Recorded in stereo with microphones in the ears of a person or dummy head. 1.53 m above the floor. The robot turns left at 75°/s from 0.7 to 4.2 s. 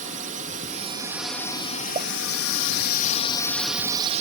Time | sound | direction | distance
0.0 | a drone | 140° right | ?
1.9 | a pop | 30° right (ahead or behind) | ?